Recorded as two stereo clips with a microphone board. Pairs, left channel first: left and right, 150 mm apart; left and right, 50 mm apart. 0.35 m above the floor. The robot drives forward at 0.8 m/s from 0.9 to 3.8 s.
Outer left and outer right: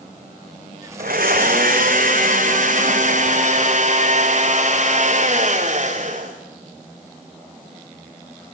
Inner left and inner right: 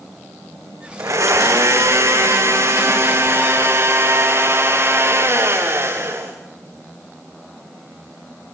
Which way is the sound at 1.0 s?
80° right.